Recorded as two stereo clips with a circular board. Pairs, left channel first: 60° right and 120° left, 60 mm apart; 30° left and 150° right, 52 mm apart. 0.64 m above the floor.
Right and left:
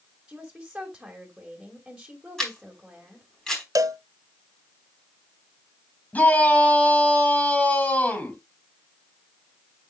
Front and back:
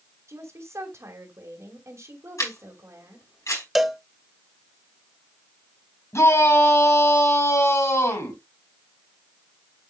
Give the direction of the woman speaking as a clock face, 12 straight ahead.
5 o'clock.